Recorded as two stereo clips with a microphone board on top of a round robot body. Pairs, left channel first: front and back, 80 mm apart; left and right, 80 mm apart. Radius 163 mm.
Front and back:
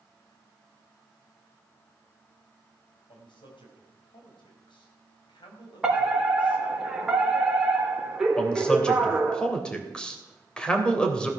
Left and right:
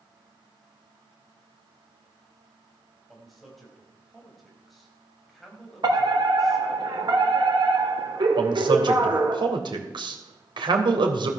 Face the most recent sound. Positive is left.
turn(degrees=-80)